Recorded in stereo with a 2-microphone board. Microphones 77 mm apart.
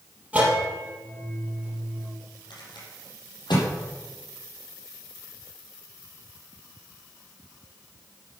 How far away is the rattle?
About 5.5 m.